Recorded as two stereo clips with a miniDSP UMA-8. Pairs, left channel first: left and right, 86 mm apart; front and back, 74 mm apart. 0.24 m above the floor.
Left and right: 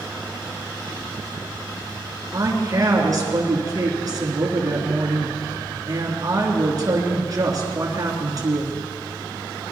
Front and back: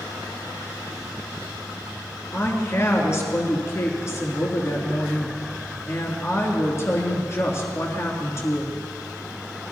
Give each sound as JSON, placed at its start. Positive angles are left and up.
{"t": 2.3, "sound": "a woman speaking", "azimuth_deg": -50, "distance_m": 3.0}